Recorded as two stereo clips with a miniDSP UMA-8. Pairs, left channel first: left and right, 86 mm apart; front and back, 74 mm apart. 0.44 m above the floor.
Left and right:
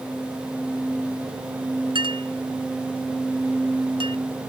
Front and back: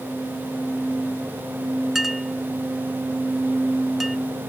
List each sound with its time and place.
1.9 s a clink: 95° right